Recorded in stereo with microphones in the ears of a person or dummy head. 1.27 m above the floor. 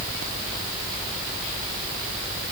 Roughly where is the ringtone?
I don't hear a ringtone.